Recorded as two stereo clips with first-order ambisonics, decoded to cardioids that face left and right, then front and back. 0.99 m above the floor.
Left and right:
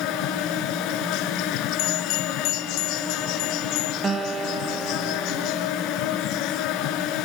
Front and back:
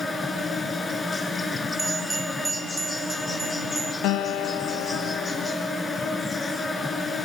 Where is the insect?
70° left, 1.9 m.